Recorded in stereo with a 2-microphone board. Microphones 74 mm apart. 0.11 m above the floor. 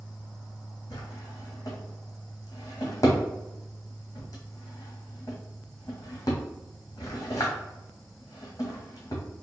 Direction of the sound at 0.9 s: 45° left (ahead or behind).